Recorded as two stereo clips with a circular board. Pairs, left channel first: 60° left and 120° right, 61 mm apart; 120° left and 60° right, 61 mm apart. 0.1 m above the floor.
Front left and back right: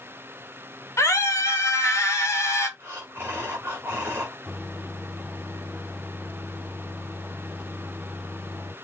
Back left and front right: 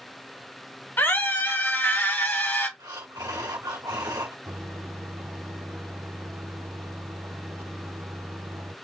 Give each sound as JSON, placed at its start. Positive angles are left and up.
{"t": 1.0, "sound": "a scream", "azimuth_deg": 80, "distance_m": 2.5}
{"t": 2.8, "sound": "breathing", "azimuth_deg": -60, "distance_m": 2.0}
{"t": 4.5, "sound": "a microwave", "azimuth_deg": -35, "distance_m": 2.5}